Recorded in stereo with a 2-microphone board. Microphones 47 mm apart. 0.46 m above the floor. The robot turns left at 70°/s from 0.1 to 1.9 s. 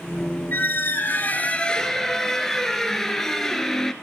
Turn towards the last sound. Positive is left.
turn(degrees=10)